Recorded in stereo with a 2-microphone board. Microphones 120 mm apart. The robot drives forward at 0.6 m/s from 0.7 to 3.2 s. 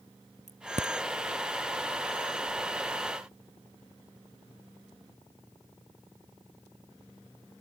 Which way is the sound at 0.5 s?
70° right (ahead or behind).